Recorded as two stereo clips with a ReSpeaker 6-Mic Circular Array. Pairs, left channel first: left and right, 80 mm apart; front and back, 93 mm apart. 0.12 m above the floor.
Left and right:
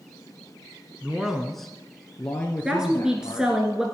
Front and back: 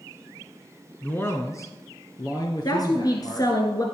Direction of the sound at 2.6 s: 10° right.